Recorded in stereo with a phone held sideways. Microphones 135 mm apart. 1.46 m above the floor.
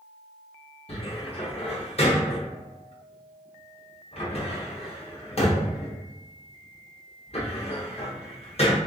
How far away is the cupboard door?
About 0.9 m.